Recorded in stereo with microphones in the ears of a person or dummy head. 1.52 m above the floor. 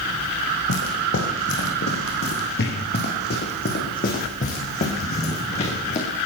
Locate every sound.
0.7 s footsteps: 65° left (ahead or behind), 5.5 m; by 6.1 s 35° left (ahead or behind), 6.5 m